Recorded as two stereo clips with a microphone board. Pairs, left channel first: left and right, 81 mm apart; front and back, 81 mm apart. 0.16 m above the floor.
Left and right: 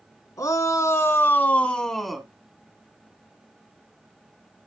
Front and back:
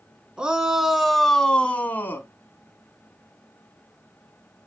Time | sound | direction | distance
0.4 | a shout | 105° left | 1.9 m